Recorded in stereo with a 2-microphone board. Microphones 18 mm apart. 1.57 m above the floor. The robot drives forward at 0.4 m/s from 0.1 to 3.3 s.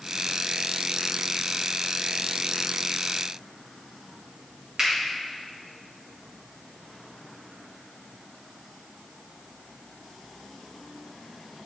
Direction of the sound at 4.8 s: 50° right (ahead or behind).